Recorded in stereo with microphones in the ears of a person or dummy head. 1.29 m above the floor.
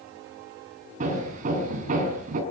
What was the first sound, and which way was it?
Hammering, 35° right (ahead or behind).